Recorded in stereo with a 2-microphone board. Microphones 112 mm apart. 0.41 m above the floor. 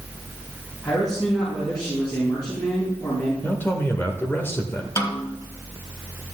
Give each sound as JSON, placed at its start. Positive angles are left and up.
{"t": 0.8, "sound": "a man speaking", "side_deg": 35, "distance_m": 4.0}
{"t": 3.4, "sound": "a man speaking", "side_deg": 20, "distance_m": 0.9}
{"t": 5.0, "sound": "a snare drum", "side_deg": 25, "distance_m": 1.2}